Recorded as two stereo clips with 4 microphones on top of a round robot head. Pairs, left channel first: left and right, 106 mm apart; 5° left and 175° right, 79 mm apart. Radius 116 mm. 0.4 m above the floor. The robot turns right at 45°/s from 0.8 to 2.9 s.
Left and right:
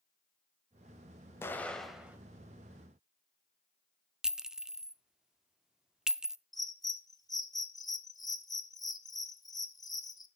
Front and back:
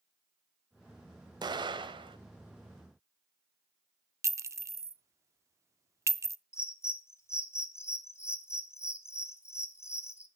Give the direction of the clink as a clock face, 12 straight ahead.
6 o'clock.